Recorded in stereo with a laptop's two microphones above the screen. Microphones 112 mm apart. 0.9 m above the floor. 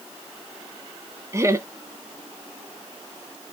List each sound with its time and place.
1.3 s laughter: 25° right (ahead or behind), 0.6 m